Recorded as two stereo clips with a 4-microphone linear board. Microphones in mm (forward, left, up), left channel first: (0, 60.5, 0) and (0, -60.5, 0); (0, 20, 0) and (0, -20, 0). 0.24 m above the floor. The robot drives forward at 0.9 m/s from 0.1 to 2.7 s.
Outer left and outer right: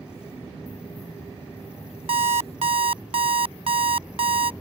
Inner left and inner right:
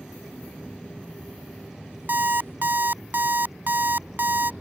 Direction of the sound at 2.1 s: 55° right (ahead or behind).